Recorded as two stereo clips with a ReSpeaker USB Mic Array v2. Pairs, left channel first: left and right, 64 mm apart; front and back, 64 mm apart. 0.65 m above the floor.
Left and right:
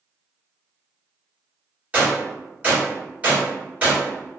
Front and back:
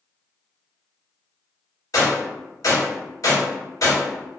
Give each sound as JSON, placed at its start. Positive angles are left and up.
{"t": 1.9, "sound": "a gunshot", "azimuth_deg": -25, "distance_m": 1.4}